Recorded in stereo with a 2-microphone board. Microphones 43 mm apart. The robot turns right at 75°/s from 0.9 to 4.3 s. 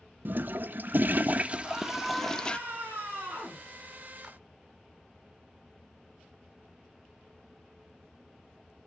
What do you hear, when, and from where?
0.2 s a toilet flushing: 90° right, 0.5 m; by 2.6 s 40° left, 0.5 m
1.6 s a scream: 170° left, 7.5 m; by 3.6 s 40° right, 7.5 m
4.2 s a clap: 5° left (ahead or behind), 2.5 m; by 4.4 s 10° left (ahead or behind), 2.5 m